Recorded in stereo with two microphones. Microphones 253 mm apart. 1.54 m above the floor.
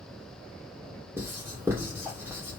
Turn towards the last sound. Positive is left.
turn(degrees=-10)  # may be behind; listen again after turning